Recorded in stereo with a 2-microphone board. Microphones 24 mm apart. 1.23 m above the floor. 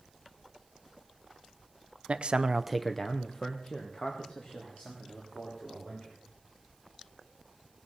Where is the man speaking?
50° right (ahead or behind), 0.9 m; by 6.2 s 50° left (ahead or behind), 5 m.